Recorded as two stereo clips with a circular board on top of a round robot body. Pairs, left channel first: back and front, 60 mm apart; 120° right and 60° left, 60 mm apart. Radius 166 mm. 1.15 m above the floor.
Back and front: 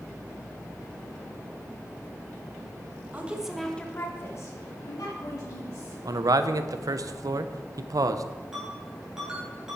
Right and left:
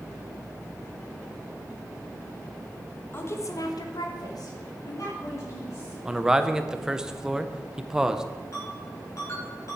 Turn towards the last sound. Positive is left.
turn(degrees=-80)